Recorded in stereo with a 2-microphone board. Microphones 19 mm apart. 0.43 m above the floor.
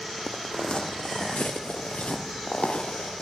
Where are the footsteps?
30° left (ahead or behind), 1.2 m; by 3.2 s 75° left (ahead or behind), 4.5 m.